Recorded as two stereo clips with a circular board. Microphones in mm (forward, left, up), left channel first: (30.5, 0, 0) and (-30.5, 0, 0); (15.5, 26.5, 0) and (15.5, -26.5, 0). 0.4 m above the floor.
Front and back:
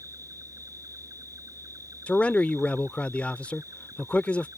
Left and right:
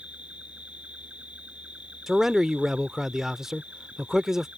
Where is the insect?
160° right.